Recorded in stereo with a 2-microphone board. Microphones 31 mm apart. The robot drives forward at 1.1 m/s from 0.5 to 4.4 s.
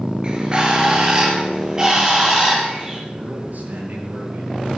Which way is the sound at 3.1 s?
65° right (ahead or behind).